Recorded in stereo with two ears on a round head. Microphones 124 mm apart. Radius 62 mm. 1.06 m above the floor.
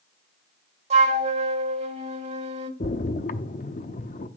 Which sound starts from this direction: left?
A splash, at 2.8 s.